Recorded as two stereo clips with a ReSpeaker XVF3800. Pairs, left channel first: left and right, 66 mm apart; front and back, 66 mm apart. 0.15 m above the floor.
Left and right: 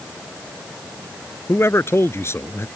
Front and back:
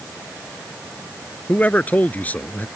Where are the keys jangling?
I don't hear keys jangling.